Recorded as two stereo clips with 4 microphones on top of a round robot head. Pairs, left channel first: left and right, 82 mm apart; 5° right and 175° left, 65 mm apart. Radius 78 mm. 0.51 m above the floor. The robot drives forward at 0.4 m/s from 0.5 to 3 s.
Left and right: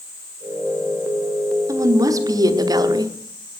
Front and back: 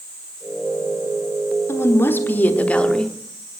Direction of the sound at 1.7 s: 45° right.